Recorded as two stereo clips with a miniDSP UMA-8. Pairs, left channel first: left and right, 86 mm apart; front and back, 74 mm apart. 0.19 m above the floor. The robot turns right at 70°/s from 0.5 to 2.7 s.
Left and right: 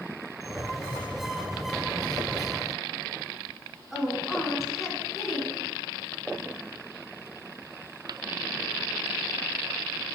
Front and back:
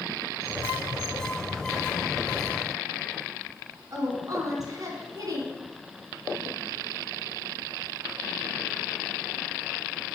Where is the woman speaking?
175° right, 2 m.